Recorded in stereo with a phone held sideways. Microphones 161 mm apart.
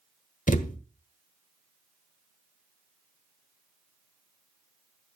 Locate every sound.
0.5 s a thud: 55° left (ahead or behind), 1.3 m